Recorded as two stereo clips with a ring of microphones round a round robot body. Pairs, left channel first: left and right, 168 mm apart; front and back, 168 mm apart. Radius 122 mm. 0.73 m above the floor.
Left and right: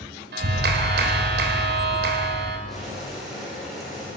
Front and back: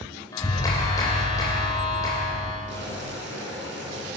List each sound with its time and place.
0.3 s a clap: 75° right, 3 m
2.7 s boiling: straight behind, 7.5 m